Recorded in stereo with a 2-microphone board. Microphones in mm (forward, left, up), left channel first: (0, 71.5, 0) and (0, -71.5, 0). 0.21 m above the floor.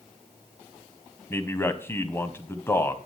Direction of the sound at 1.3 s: 20° left (ahead or behind).